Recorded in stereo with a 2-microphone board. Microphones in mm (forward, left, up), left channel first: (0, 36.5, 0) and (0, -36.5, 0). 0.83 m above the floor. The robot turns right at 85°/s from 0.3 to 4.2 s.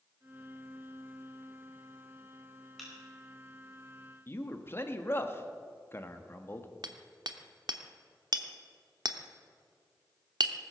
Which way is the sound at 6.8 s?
70° right (ahead or behind).